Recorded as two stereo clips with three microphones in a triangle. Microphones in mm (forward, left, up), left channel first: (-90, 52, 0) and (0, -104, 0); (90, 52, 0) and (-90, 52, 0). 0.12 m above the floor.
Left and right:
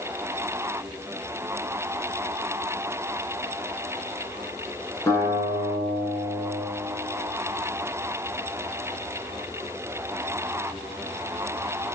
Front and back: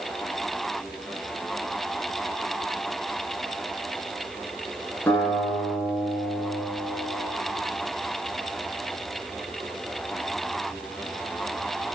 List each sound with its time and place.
5.1 s a guitar: 65° left, 1.9 m